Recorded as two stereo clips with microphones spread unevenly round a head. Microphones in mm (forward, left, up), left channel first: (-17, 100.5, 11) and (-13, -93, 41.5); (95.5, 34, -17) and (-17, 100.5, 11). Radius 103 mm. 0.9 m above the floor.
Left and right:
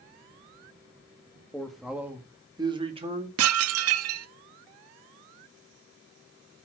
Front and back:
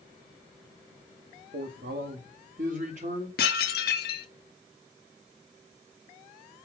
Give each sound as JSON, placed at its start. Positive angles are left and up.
{"t": 1.5, "sound": "a man speaking", "azimuth_deg": 170, "distance_m": 1.9}
{"t": 3.4, "sound": "dishes clattering", "azimuth_deg": -65, "distance_m": 0.7}